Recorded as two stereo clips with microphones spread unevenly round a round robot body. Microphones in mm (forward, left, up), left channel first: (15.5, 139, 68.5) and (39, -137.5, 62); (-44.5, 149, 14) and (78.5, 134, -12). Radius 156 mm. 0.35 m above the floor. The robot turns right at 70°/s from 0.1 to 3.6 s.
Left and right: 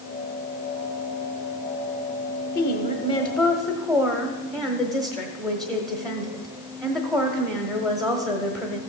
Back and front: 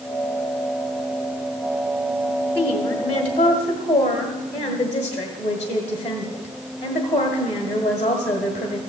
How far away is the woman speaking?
About 1.5 m.